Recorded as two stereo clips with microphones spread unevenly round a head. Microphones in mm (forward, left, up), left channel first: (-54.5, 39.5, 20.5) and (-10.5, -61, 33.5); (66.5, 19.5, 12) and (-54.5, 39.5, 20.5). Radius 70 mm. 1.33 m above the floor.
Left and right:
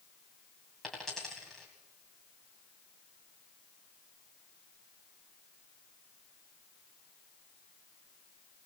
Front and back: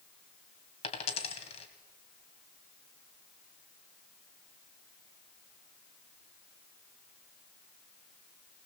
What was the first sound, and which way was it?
A dropped coin, 20° left.